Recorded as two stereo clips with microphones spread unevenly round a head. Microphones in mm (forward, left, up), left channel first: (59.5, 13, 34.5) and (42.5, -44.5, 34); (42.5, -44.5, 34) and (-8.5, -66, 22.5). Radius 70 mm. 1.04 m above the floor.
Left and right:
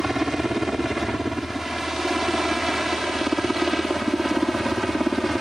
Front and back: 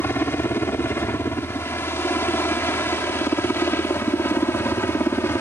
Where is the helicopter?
20° right; by 5.4 s 15° right.